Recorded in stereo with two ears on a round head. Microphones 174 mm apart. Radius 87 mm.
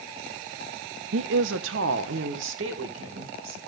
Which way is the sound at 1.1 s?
70° right (ahead or behind).